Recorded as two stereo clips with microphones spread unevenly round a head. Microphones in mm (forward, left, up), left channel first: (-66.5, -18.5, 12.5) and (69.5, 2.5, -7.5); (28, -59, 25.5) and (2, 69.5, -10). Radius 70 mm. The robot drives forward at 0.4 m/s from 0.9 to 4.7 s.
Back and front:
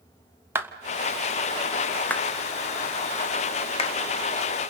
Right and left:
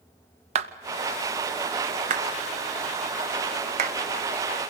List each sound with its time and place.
0.6 s a clap: 80° left, 1.1 m; by 4.0 s 135° left, 1.5 m